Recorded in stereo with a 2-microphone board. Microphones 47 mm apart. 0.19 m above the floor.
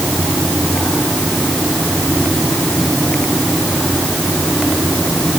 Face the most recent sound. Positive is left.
No sound to turn to.